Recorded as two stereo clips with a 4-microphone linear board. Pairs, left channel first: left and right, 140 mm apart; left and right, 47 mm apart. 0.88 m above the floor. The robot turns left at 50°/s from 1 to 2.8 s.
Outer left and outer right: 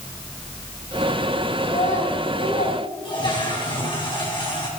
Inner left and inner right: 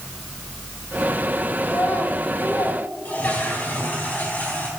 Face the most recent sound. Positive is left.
turn(degrees=35)  # may be behind; listen again after turning